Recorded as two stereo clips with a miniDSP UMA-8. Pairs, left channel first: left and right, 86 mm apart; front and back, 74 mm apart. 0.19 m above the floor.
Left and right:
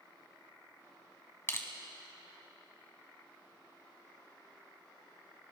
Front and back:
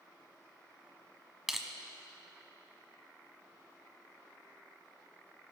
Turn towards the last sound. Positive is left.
turn(degrees=100)